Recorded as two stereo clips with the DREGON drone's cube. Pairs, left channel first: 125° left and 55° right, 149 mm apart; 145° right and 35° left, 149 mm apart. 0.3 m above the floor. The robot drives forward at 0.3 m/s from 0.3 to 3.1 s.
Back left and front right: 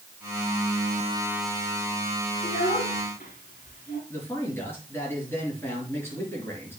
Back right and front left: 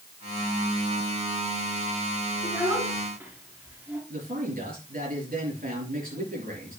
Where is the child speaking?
105° left, 3 m; by 4.0 s 110° left, 3 m.